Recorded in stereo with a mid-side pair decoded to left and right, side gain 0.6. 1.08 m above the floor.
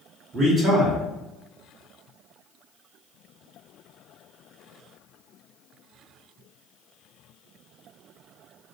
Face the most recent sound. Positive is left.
turn(degrees=-35)